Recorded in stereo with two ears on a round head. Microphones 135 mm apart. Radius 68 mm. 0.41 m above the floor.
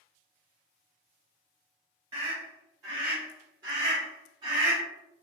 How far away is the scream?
About 1.5 m.